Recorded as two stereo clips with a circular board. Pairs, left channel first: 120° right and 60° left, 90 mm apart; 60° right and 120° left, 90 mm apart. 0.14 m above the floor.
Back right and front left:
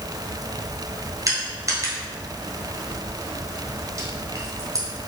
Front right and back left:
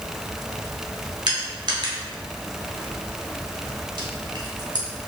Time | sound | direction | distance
1.3 | crushing | 100° left | 1.2 m